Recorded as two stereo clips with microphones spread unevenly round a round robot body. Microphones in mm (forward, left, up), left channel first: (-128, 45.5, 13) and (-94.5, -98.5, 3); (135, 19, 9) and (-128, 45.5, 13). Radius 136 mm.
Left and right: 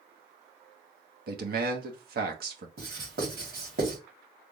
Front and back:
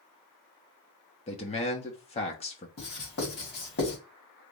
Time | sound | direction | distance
1.3 | a man speaking | 75° right | 1.2 m
2.8 | writing | 60° right | 2.5 m